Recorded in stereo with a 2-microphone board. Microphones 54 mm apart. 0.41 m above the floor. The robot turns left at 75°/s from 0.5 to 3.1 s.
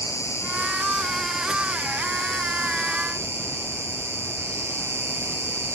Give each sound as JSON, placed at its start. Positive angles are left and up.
{"t": 0.0, "sound": "an insect", "azimuth_deg": 60, "distance_m": 1.7}